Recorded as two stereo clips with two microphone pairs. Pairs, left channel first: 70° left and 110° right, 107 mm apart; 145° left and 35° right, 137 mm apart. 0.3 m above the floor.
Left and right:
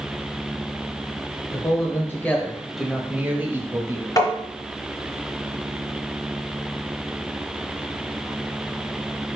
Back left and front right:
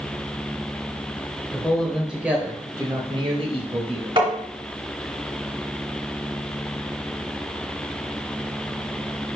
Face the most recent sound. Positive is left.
turn(degrees=15)